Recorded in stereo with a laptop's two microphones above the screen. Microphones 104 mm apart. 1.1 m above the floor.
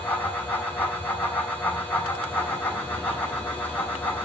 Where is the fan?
20° left (ahead or behind), 3.5 m.